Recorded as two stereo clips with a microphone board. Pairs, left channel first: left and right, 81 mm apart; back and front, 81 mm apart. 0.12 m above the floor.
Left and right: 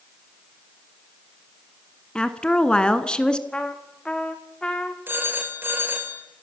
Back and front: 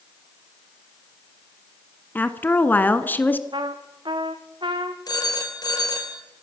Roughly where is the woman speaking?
Behind left.